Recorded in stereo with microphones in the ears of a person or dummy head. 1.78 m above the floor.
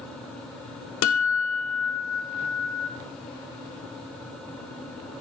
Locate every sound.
1.0 s a guitar: 75° left (ahead or behind), 1.5 m